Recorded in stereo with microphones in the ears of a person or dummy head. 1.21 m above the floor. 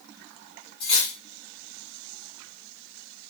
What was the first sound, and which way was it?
Cutlery clinking, 25° left (ahead or behind).